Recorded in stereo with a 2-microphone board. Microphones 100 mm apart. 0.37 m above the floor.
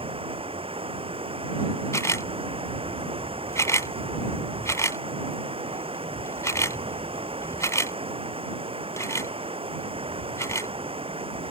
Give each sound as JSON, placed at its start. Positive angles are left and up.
{"t": 0.0, "sound": "running water", "side_deg": -65}
{"t": 1.9, "sound": "a camera shutter", "side_deg": 30}